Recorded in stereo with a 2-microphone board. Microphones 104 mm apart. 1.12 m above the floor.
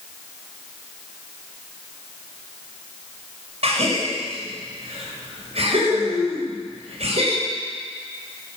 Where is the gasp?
80° right, 6.5 m.